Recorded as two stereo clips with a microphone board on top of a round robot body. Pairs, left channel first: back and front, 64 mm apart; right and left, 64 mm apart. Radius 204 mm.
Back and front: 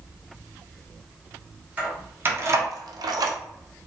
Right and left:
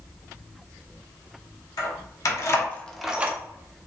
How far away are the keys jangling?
About 1.1 m.